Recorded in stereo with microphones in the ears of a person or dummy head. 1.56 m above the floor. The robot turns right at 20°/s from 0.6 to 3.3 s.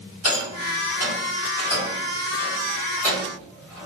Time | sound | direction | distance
0.2 | a rattle | 55° left (ahead or behind) | 2.0 m